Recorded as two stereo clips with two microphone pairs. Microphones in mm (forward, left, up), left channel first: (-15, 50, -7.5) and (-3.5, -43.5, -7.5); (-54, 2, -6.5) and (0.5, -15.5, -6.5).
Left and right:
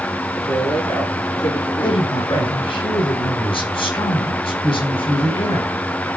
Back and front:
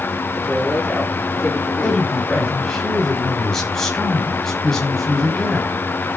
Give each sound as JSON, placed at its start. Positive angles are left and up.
{"t": 0.3, "sound": "a man speaking", "azimuth_deg": 65, "distance_m": 9.5}
{"t": 1.8, "sound": "a woman speaking", "azimuth_deg": 80, "distance_m": 4.5}